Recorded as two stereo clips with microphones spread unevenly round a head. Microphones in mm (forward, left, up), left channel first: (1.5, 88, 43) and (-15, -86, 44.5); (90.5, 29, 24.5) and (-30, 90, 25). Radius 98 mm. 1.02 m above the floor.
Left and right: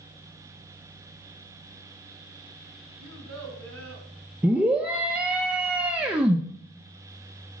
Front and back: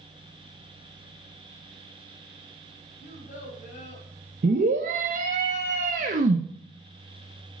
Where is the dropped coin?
No dropped coin in this recording.